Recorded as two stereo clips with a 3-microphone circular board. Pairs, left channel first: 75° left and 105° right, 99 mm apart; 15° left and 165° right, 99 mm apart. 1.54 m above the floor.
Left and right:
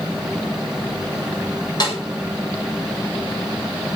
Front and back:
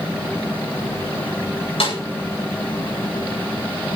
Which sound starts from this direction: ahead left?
A snare drum, at 1.8 s.